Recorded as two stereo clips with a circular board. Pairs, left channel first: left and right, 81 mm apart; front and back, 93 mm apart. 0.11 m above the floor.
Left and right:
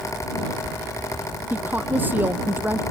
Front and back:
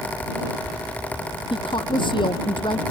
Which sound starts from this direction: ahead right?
A woman speaking, at 1.5 s.